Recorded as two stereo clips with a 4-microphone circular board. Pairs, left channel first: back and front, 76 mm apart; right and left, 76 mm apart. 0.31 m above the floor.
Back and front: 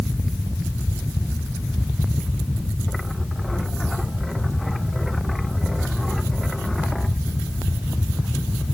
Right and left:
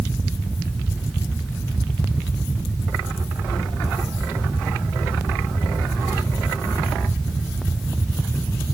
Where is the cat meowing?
I don't hear a cat meowing.